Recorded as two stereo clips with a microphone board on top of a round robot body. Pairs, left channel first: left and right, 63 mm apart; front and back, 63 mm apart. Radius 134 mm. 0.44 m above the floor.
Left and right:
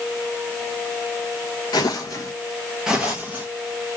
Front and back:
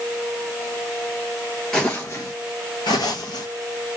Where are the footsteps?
85° left, 0.6 m; by 4.0 s 30° right, 1.1 m.